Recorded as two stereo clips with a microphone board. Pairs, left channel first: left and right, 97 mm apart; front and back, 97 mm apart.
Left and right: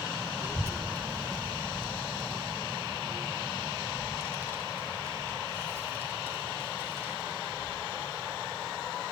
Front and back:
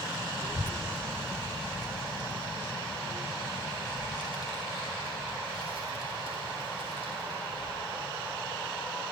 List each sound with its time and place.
0.4 s a child speaking: 25° right, 0.6 m; by 9.0 s 155° right, 6 m